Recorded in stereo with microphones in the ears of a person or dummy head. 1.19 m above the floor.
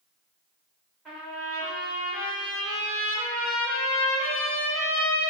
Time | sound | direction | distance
1.1 | a trumpet | 5° right (ahead or behind) | 1.1 m